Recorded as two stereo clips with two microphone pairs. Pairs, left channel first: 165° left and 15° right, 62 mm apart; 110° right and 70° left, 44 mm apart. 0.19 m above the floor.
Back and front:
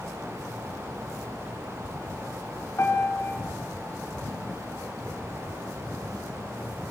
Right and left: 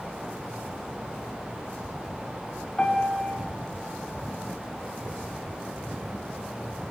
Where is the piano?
170° right, 2.5 m.